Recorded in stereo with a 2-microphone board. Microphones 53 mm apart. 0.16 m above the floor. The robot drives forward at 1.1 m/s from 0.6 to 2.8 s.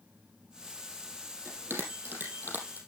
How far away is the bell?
About 3.5 m.